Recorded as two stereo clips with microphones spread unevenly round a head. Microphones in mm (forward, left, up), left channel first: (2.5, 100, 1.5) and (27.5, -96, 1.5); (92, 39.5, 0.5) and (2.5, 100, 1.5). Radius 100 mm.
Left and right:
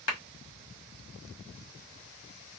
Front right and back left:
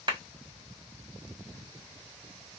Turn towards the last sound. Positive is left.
turn(degrees=100)